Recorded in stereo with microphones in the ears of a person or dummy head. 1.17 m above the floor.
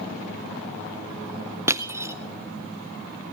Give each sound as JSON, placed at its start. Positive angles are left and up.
{"t": 1.7, "sound": "crushing", "side_deg": -15, "distance_m": 0.5}